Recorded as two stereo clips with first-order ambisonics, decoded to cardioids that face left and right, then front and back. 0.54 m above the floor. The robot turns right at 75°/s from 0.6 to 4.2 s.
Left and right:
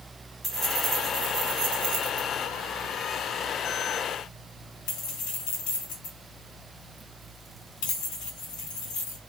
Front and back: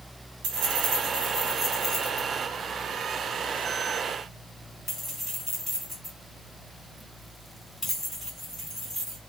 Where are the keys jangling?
175° left, 2 m; by 9.2 s 85° left, 2 m.